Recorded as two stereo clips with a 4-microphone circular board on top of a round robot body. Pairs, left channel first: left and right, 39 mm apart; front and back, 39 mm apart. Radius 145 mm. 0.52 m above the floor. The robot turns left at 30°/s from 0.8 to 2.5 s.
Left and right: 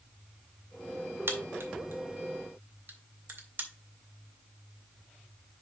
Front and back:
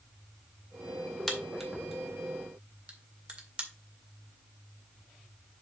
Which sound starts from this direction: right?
A crack, at 1.3 s.